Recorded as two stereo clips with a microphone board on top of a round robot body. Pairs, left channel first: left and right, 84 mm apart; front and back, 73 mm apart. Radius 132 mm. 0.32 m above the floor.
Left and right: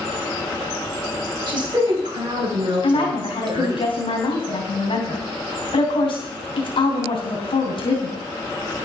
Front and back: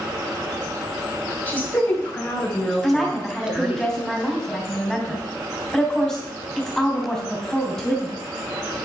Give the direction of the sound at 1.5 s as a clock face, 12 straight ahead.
2 o'clock.